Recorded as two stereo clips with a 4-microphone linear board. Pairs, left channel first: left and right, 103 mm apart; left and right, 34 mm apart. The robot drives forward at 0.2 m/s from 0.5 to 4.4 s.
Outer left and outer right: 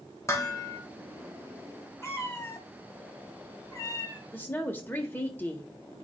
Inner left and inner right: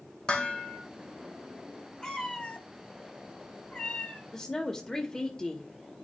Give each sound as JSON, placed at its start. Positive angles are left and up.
{"t": 0.3, "sound": "dishes clattering", "side_deg": 30, "distance_m": 1.7}
{"t": 2.0, "sound": "a cat meowing", "side_deg": 25, "distance_m": 1.3}
{"t": 4.3, "sound": "a woman speaking", "side_deg": 20, "distance_m": 1.0}